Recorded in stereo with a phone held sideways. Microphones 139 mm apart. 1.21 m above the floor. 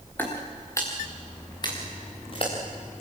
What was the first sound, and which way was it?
Footsteps, 15° left (ahead or behind).